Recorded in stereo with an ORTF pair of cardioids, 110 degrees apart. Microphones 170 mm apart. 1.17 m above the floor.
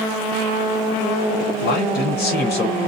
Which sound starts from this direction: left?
A man speaking, at 1.6 s.